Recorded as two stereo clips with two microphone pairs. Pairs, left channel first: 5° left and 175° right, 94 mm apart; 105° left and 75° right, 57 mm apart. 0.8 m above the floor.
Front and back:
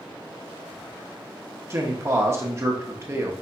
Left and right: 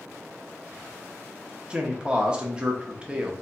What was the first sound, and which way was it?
A man speaking, 135° right.